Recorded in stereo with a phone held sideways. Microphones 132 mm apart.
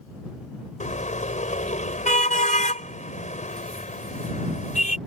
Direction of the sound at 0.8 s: 70° left (ahead or behind).